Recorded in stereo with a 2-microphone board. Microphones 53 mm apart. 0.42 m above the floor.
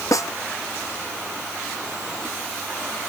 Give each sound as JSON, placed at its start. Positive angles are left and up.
{"t": 0.1, "sound": "a snare drum", "side_deg": 80}